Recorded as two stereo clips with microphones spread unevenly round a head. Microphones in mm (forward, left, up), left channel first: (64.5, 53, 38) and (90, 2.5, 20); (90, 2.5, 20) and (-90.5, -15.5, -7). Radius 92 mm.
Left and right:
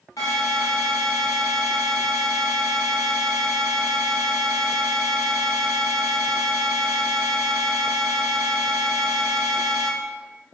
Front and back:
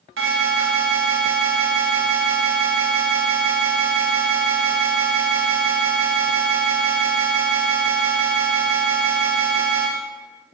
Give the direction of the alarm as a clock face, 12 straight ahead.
6 o'clock.